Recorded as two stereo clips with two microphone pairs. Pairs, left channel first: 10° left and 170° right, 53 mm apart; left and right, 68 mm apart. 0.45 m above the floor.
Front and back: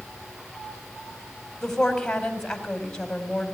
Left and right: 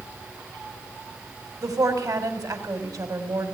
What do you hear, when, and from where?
1.6 s a woman speaking: 70° right, 3.5 m